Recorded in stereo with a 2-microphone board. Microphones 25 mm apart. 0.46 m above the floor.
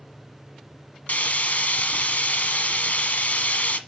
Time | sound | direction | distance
1.1 | frying | 80° left | 0.9 m